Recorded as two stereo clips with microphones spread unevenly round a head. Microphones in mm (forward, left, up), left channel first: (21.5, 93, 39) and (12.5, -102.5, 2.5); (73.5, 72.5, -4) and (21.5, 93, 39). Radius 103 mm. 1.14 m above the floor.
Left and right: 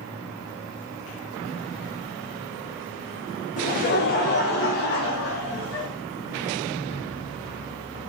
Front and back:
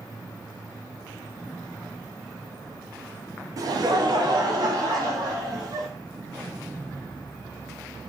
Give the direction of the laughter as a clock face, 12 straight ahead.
8 o'clock.